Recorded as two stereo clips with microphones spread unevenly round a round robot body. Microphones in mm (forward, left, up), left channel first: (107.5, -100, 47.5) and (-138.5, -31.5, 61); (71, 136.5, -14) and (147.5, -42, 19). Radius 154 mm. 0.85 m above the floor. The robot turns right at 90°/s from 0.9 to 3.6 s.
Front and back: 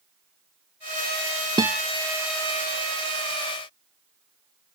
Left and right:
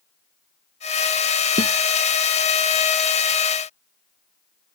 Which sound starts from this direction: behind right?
A guitar, at 1.6 s.